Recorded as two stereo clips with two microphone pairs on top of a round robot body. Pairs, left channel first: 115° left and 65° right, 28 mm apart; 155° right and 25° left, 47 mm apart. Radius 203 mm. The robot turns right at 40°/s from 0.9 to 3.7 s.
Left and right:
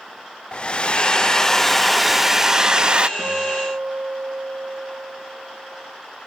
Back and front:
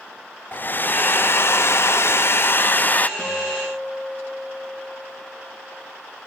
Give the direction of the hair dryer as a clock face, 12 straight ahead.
6 o'clock.